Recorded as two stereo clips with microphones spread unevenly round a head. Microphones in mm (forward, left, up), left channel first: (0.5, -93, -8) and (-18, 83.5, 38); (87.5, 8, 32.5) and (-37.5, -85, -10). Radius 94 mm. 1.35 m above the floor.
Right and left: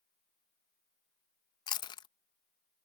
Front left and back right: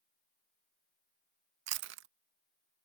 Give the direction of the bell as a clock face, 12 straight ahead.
I don't hear a bell.